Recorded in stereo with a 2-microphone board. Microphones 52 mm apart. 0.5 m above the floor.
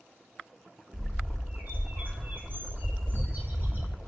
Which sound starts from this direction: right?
A bird, at 0.9 s.